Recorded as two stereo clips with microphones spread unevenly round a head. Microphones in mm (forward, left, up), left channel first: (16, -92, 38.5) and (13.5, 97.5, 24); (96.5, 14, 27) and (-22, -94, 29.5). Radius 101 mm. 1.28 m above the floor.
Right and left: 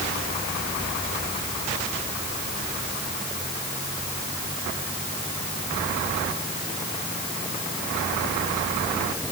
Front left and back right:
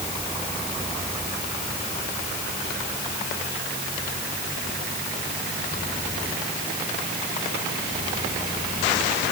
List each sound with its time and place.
Only background noise.